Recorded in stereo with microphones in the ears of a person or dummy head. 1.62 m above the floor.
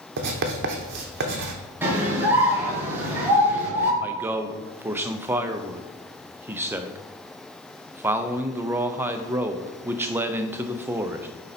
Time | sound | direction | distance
0.2 | writing | 60° right (ahead or behind) | 1.0 m
1.8 | a scream | 15° right (ahead or behind) | 1.6 m
4.0 | a man speaking | 15° right (ahead or behind) | 0.6 m